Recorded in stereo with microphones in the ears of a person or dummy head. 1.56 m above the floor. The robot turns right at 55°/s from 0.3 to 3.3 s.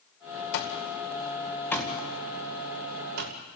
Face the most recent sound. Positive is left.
turn(degrees=-60)  # may be behind; listen again after turning